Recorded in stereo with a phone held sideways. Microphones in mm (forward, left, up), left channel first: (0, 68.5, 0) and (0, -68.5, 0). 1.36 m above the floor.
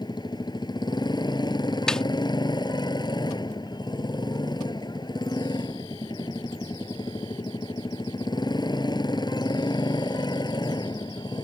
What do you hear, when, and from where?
0.0 s a motorcycle: 30° left (ahead or behind)
1.9 s a snare drum: 5° left (ahead or behind)